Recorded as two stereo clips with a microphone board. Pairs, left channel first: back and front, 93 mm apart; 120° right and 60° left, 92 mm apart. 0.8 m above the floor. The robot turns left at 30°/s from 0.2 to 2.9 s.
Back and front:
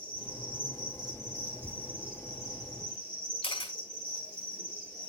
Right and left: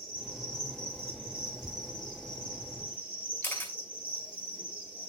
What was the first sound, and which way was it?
An insect, 20° right.